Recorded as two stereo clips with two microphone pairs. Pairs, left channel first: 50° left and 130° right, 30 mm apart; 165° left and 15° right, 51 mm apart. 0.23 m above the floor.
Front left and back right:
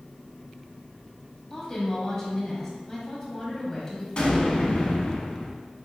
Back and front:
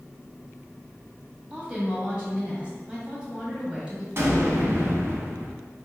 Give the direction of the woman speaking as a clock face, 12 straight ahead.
12 o'clock.